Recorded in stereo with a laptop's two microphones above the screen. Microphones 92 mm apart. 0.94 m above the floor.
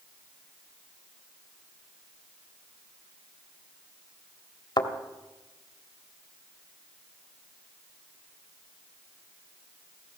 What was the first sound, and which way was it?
A thud, 50° left (ahead or behind).